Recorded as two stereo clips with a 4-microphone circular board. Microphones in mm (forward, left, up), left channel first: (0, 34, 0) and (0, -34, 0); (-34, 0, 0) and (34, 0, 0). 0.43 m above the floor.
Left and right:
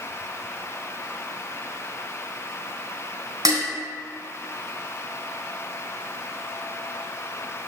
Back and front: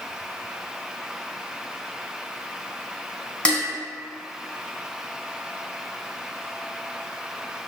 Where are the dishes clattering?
105° right, 2.5 m.